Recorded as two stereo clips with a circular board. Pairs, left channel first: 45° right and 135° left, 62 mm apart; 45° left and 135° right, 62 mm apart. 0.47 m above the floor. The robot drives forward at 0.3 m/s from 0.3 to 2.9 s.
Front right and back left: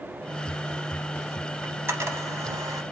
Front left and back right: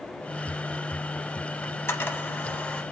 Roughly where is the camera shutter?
Left.